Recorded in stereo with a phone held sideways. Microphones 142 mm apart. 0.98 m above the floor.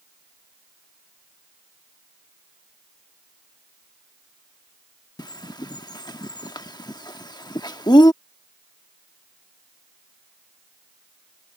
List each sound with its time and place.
5.2 s a bird: 30° left (ahead or behind)